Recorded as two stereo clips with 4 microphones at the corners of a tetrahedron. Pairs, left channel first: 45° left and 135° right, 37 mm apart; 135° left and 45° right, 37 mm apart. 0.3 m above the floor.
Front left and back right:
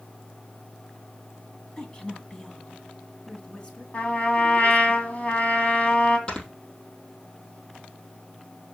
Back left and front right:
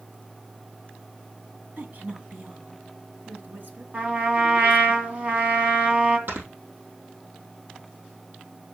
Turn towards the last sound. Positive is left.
turn(degrees=-20)